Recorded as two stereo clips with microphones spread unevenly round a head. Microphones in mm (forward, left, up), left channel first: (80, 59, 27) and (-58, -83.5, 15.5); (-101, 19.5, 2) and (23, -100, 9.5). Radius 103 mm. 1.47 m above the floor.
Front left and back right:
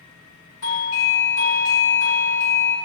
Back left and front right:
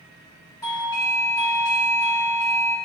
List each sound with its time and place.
0.6 s a doorbell: 60° left, 1.3 m